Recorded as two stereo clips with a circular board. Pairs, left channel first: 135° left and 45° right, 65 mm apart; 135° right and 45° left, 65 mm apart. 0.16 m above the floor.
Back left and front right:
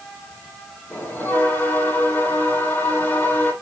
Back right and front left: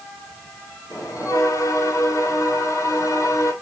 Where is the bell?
165° right, 5 m.